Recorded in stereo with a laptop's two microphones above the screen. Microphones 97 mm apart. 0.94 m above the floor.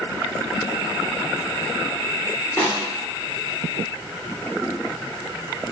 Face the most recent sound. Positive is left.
turn(degrees=15)  # may be behind; listen again after turning